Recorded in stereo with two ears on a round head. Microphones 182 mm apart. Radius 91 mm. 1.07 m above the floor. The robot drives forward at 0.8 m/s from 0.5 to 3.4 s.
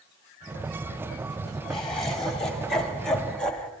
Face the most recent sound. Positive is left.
turn(degrees=5)  # may be behind; listen again after turning